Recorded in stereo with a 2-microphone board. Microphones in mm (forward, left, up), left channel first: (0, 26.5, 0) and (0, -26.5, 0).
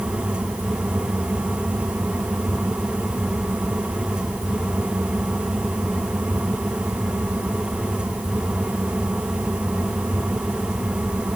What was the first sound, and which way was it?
Only background noise.